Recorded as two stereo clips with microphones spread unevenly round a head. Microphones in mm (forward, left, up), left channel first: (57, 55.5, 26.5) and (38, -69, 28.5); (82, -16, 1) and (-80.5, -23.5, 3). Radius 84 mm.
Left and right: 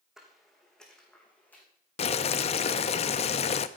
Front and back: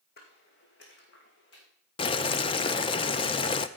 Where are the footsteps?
15° right, 3 m; by 1.6 s 5° left, 3.5 m.